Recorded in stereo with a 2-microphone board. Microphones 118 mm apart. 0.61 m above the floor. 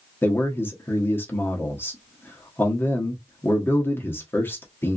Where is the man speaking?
20° left (ahead or behind), 0.9 m.